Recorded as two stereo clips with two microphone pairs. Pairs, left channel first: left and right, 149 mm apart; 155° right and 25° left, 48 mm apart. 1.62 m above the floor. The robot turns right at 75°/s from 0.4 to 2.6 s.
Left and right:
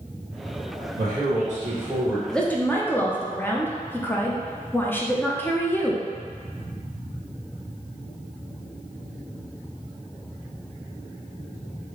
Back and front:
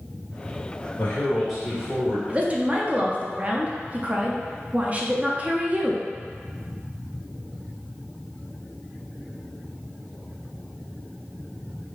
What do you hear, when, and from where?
1.0 s a man speaking: 100° right, 1.8 m; by 2.2 s 10° right, 1.8 m
2.3 s a woman speaking: straight ahead, 0.6 m; by 6.0 s 25° left, 0.6 m